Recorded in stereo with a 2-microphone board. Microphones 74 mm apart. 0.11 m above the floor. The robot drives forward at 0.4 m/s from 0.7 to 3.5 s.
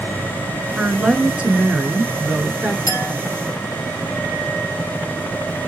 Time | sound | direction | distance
0.8 | a woman speaking | 15° right (ahead or behind) | 1.1 m
2.9 | a clink | 40° left (ahead or behind) | 2.5 m